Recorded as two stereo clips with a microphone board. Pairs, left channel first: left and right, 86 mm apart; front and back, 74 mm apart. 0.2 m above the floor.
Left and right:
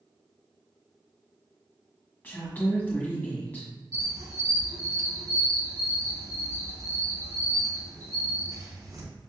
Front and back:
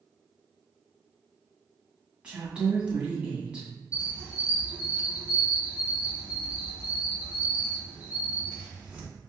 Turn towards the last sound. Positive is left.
turn(degrees=-110)